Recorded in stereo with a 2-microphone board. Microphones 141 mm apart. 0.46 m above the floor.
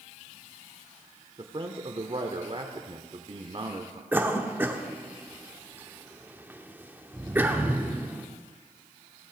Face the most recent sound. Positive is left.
turn(degrees=-15)  # may be behind; listen again after turning